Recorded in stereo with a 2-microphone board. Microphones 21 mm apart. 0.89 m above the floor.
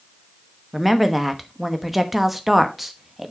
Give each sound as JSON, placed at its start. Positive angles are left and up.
{"t": 0.7, "sound": "a woman speaking", "side_deg": -5, "distance_m": 1.0}